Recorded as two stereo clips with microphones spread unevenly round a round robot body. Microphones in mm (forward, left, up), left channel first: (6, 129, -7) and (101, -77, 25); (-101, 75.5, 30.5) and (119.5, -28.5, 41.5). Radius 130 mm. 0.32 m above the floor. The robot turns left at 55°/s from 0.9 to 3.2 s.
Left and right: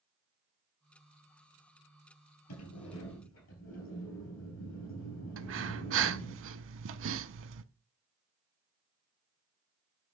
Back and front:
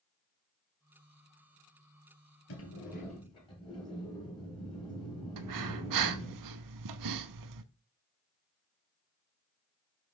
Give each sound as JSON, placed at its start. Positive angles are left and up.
{"t": 2.5, "sound": "a sliding door", "azimuth_deg": 125, "distance_m": 3.0}
{"t": 5.4, "sound": "breathing", "azimuth_deg": -35, "distance_m": 0.6}